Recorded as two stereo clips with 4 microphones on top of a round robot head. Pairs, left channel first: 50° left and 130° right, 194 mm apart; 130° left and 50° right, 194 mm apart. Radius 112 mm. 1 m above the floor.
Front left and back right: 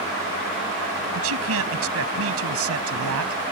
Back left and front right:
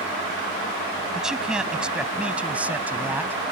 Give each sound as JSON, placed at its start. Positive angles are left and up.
{"t": 1.1, "sound": "a man speaking", "azimuth_deg": -135}